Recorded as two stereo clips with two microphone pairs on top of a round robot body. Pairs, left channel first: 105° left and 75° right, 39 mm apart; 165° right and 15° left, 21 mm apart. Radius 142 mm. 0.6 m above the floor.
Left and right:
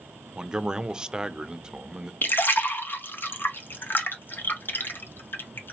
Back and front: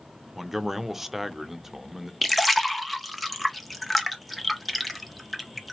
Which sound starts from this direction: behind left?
A splash, at 2.2 s.